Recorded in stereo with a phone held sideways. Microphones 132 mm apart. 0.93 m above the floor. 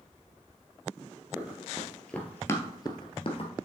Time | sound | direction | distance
1.4 | running footsteps | 10° right (ahead or behind) | 1.6 m